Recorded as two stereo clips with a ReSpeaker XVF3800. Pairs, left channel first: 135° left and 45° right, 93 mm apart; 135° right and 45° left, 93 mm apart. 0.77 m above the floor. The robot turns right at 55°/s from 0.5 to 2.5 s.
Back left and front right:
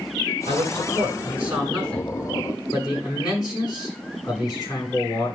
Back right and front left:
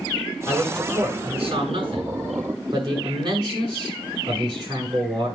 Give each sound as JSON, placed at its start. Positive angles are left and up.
{"t": 0.5, "sound": "a man speaking", "azimuth_deg": -25, "distance_m": 7.5}